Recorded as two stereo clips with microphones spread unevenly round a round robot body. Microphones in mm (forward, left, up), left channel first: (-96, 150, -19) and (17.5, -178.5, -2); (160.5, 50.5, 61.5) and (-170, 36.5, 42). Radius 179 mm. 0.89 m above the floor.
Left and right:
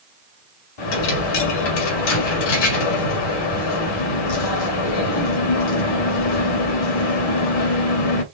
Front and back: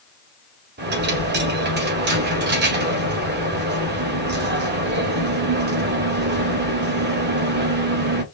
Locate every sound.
0.8 s a dropped coin: 120° left, 1.8 m